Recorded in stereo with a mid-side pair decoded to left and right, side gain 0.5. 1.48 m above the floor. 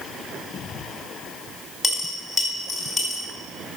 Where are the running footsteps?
I don't hear running footsteps.